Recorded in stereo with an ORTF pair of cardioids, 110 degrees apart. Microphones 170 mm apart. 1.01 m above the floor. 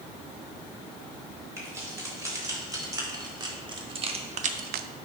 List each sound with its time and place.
1.6 s keys jangling: 20° right, 4 m; by 4.9 s 80° right, 0.6 m